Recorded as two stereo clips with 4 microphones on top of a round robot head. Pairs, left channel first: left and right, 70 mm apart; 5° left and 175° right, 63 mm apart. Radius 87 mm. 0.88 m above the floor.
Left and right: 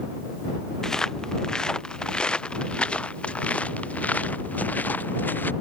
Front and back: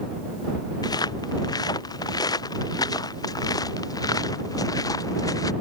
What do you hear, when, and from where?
0.8 s footsteps: 10° left; by 5.5 s 25° left